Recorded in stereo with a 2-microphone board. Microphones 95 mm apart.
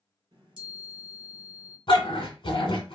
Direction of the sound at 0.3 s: 55° right (ahead or behind).